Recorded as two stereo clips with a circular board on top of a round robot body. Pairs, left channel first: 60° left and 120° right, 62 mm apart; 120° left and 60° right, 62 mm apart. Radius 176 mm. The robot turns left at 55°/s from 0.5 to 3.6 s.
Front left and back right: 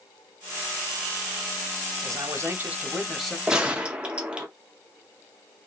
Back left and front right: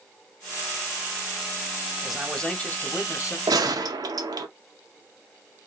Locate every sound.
2.0 s a man speaking: 140° right, 1.2 m; by 3.4 s 145° left, 1.2 m
3.5 s a gunshot: 40° right, 0.5 m; by 4.5 s 45° right, 0.5 m